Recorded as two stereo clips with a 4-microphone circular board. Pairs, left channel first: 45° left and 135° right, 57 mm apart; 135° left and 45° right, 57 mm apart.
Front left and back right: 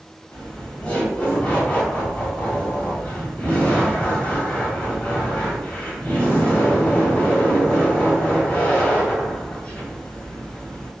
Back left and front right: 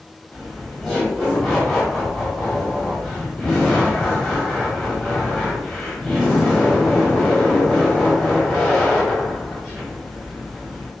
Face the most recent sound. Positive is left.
turn(degrees=55)